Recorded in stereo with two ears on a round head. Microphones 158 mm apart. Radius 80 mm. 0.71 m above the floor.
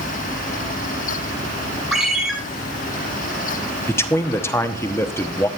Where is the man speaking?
15° left (ahead or behind), 1.0 m.